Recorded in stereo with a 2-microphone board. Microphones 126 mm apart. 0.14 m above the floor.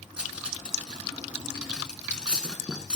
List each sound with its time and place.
0.2 s cutlery clinking: 10° right (ahead or behind), 0.9 m